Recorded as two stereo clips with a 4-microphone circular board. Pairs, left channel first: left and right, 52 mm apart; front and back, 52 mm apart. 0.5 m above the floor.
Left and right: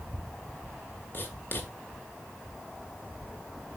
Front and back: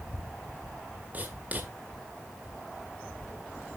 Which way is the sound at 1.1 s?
125° left.